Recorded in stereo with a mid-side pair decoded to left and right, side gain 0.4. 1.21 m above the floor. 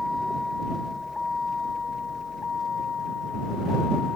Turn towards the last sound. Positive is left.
turn(degrees=55)